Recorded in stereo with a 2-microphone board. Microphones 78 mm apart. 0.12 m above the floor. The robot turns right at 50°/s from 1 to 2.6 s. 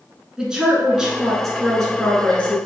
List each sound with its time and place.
0.4 s a woman speaking: 10° right (ahead or behind), 1.1 m; by 2.6 s 20° left (ahead or behind), 1.1 m